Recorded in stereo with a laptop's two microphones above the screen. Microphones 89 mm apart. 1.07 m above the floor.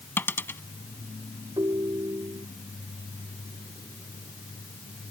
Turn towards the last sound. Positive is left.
turn(degrees=-55)  # may be behind; listen again after turning